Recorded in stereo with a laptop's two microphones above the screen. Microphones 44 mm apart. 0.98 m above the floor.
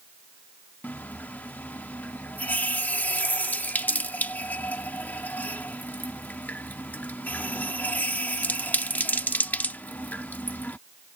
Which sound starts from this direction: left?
A running tap, at 0.8 s.